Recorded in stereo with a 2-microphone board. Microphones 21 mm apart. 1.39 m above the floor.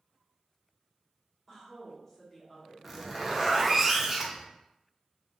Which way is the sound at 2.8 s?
10° right (ahead or behind).